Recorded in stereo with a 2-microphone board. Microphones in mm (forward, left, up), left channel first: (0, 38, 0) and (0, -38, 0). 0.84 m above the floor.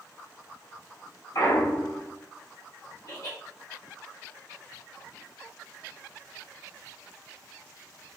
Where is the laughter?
60° left (ahead or behind), 1.1 m.